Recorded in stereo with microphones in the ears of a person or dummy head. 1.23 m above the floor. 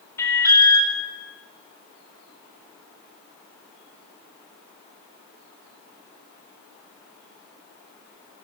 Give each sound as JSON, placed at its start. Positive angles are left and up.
{"t": 0.2, "sound": "an alarm", "side_deg": 20, "distance_m": 5.0}